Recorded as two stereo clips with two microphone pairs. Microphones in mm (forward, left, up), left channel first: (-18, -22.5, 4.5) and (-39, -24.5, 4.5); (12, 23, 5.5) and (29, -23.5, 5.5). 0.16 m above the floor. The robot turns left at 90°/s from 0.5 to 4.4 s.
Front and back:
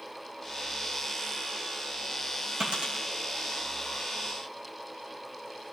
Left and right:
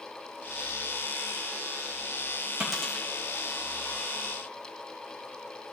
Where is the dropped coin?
145° right, 3 m; by 3.0 s 170° left, 3 m.